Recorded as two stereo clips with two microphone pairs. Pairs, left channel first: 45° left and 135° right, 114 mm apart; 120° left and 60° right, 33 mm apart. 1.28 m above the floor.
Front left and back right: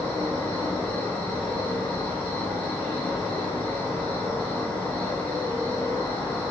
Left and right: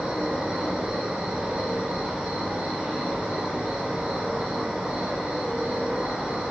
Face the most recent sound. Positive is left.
turn(degrees=-25)